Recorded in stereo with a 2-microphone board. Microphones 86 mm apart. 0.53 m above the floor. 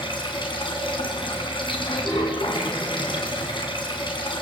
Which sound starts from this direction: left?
Running water, at 0.0 s.